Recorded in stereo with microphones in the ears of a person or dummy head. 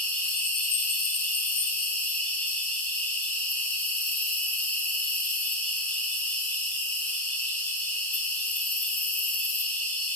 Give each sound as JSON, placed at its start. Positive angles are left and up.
{"t": 0.0, "sound": "an insect", "side_deg": 5, "distance_m": 0.7}